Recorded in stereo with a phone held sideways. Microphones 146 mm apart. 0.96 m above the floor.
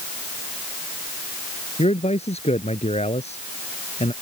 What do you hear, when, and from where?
1.8 s a man speaking: 50° left (ahead or behind)